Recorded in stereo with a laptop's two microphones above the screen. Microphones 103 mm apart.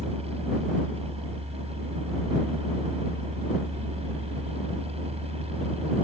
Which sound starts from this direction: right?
A fan, at 0.0 s.